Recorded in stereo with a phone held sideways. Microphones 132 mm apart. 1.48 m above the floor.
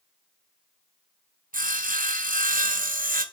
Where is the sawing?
75° right (ahead or behind), 0.8 m.